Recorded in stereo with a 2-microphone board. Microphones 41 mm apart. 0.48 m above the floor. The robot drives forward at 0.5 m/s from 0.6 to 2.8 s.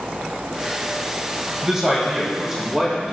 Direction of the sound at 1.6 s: 15° right (ahead or behind).